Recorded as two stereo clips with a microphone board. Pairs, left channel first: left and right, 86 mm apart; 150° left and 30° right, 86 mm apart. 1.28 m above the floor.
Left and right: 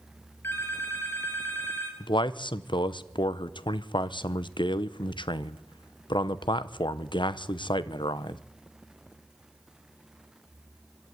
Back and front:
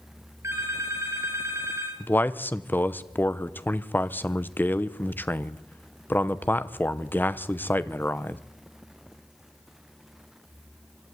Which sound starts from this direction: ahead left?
A phone ringing, at 0.4 s.